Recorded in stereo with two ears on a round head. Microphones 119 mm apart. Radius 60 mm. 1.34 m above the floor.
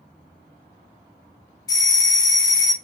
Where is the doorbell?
30° left (ahead or behind), 0.8 m.